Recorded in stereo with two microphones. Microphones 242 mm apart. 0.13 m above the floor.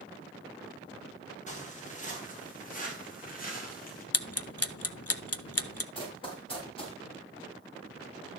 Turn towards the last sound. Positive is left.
turn(degrees=25)  # may be behind; listen again after turning